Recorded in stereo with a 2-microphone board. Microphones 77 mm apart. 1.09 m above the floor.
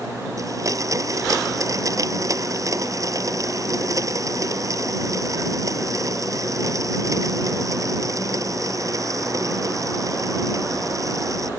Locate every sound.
0.4 s a blender: 45° right (ahead or behind)